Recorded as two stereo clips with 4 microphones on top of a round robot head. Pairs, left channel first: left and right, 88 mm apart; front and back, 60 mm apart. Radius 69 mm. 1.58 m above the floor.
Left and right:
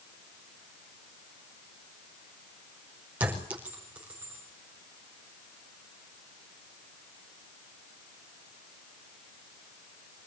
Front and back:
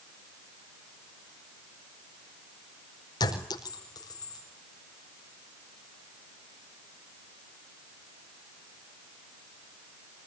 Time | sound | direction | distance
3.2 | a clink | 15° right | 5 m